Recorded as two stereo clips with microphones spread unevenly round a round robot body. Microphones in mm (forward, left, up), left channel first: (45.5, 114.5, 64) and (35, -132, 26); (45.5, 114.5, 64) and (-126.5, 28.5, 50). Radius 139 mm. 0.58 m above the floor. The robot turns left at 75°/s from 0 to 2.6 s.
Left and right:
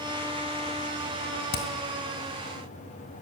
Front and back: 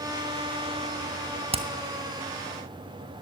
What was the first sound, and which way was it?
Hammering, 145° left.